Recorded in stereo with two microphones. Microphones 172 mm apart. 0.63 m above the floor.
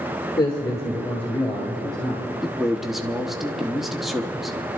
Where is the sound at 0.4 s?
25° left (ahead or behind), 1.7 m; by 2.3 s centre (ahead or behind), 4 m.